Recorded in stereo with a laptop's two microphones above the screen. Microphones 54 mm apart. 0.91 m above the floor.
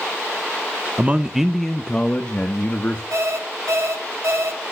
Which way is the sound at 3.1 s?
70° right (ahead or behind).